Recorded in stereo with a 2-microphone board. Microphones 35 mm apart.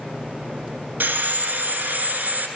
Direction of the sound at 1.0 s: 75° right (ahead or behind).